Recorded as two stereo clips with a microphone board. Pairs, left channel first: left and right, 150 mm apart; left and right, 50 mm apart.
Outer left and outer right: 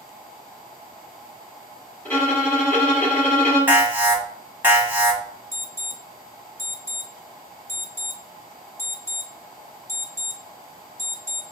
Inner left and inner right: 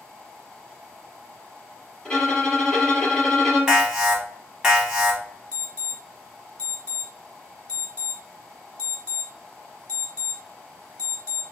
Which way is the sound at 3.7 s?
15° right (ahead or behind).